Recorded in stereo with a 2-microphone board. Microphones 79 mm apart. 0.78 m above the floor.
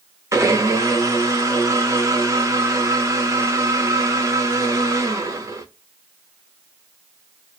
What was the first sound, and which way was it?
A blender, 35° right (ahead or behind).